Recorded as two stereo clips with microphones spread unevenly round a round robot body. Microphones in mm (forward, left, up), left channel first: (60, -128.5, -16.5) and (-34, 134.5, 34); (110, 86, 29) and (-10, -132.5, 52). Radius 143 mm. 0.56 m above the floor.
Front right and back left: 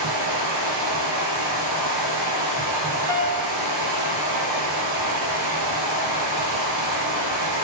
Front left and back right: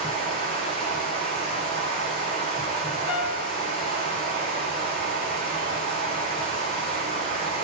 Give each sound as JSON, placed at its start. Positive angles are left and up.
{"t": 0.0, "sound": "running water", "azimuth_deg": 135, "distance_m": 3.5}
{"t": 3.1, "sound": "a piano", "azimuth_deg": 75, "distance_m": 2.5}